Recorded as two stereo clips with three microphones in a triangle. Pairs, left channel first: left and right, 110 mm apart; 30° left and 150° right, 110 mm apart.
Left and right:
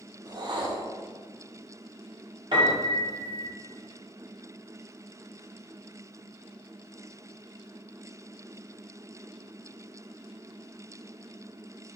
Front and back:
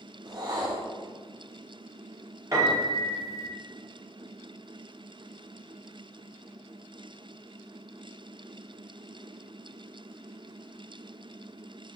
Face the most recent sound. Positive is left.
turn(degrees=-100)